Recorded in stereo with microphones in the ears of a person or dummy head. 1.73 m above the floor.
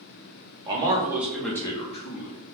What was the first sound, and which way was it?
A man speaking, 25° right (ahead or behind).